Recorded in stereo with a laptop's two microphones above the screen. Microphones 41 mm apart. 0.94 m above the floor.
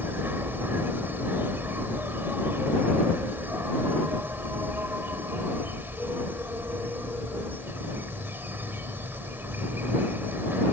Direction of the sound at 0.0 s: 65° right (ahead or behind).